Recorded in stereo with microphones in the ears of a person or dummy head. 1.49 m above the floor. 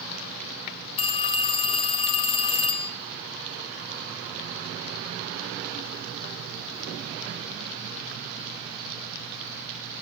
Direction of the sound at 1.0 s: 30° left (ahead or behind).